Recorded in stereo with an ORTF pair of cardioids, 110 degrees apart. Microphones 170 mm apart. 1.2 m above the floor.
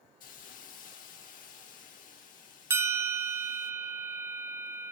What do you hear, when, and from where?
0.2 s a hiss: 55° left, 1.5 m
2.7 s a bell: 15° right, 0.7 m